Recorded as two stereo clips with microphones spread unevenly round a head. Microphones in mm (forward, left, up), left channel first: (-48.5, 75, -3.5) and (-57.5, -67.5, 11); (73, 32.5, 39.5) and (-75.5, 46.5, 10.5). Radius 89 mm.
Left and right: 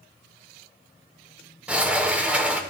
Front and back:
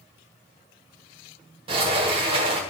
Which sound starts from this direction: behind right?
A sliding door, at 1.7 s.